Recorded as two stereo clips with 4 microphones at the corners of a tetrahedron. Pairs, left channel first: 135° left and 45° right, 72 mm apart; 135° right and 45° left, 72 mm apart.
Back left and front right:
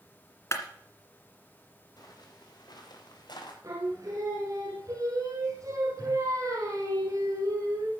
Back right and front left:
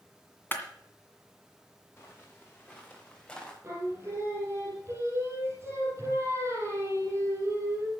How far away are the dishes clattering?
No dishes clattering in this recording.